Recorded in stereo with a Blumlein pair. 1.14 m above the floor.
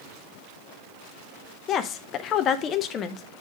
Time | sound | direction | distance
1.7 | a woman speaking | 30° left | 0.8 m